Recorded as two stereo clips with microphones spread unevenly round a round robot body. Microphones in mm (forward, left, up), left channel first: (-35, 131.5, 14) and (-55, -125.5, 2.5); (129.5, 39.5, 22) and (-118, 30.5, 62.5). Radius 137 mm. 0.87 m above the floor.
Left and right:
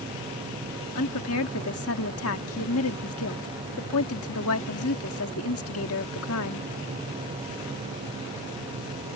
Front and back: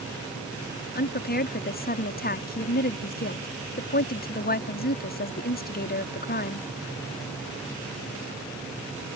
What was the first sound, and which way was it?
A woman speaking, 45° left.